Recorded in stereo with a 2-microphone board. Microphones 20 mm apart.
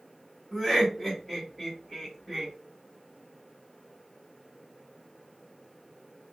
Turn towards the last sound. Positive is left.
turn(degrees=5)  # may be behind; listen again after turning